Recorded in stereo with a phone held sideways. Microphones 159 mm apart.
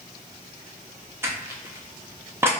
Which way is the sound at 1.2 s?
15° right (ahead or behind).